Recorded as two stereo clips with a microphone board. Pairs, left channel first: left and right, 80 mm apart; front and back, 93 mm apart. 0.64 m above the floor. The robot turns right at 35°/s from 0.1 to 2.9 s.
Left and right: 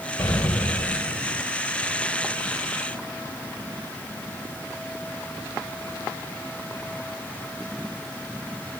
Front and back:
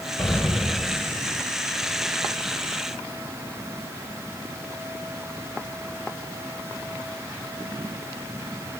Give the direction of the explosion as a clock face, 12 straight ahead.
10 o'clock.